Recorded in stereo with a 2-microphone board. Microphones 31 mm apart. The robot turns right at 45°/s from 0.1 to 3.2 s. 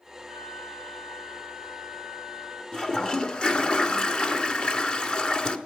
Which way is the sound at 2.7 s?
20° left (ahead or behind).